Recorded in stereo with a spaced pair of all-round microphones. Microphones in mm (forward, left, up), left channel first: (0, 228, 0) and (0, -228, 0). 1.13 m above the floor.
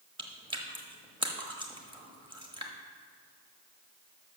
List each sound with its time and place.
0.2 s chewing: 10° right (ahead or behind), 1.0 m